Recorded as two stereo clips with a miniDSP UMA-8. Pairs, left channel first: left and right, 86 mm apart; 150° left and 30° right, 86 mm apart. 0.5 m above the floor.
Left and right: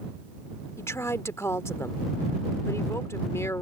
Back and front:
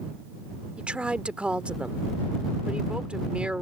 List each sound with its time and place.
0.8 s a woman speaking: 45° left